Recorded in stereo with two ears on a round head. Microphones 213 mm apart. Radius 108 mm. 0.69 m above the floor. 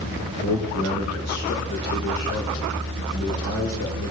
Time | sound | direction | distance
0.4 | a man speaking | 75° left (ahead or behind) | 2.5 m